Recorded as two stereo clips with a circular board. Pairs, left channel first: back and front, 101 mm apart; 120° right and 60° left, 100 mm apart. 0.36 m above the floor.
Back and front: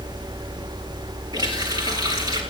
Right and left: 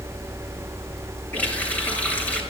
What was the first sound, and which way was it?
A running tap, 45° right.